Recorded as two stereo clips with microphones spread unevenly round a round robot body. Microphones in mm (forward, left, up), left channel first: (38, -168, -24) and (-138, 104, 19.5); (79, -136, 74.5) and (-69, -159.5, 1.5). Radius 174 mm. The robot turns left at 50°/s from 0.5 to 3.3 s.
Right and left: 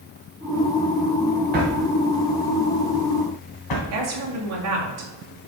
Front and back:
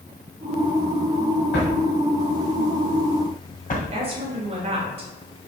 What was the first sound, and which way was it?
A drawer, 55° left.